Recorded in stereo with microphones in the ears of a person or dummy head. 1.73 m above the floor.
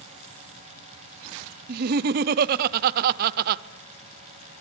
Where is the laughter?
50° right (ahead or behind), 0.8 m.